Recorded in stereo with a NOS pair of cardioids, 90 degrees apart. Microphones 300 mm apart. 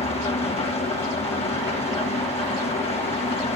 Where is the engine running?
20° left, 1.5 m.